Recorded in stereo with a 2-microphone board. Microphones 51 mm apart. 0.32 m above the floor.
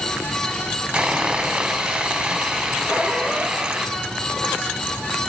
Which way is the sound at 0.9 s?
20° right (ahead or behind).